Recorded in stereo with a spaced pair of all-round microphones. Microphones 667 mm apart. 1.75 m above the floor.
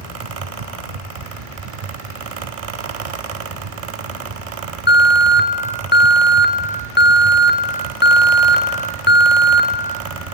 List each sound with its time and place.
0.0 s a fan: 55° right (ahead or behind), 0.7 m
4.9 s an alarm: 15° left (ahead or behind), 0.7 m